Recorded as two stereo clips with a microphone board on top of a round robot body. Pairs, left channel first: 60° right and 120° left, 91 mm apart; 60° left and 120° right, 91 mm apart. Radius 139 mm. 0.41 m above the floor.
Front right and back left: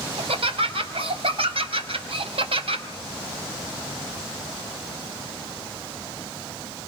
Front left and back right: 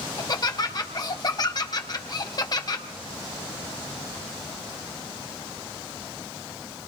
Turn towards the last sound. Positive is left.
turn(degrees=105)